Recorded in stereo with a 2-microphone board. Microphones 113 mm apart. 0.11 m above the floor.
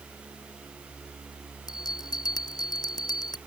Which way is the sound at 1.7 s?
35° left (ahead or behind).